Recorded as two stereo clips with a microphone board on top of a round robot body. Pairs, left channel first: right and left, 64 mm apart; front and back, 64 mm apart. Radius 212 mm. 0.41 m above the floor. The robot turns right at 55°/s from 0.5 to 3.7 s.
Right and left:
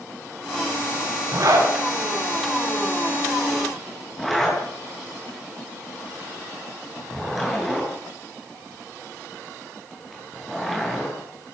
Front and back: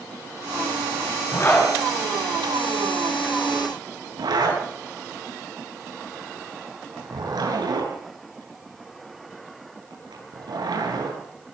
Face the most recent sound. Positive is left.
turn(degrees=180)